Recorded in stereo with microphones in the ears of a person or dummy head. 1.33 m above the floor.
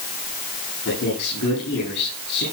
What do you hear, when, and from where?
0.8 s a man speaking: 65° left (ahead or behind), 9 m